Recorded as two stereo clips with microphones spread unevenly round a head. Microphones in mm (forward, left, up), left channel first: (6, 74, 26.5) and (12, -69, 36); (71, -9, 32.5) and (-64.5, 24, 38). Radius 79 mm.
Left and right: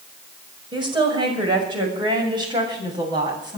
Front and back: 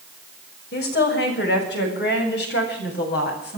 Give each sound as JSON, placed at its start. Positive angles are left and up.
{"t": 0.7, "sound": "a woman speaking", "azimuth_deg": -30, "distance_m": 6.0}